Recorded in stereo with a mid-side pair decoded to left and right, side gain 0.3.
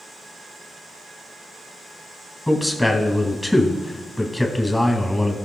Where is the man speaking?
20° left, 2.5 m.